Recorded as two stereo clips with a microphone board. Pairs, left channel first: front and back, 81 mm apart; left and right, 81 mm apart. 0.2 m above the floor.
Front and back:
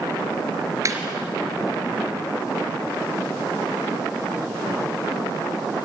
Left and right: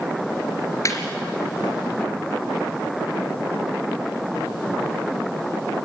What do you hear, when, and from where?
0.8 s laughter: 135° left, 3.5 m